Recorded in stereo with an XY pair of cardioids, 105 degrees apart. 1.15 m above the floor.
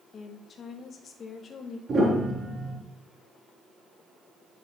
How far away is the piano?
About 3.5 m.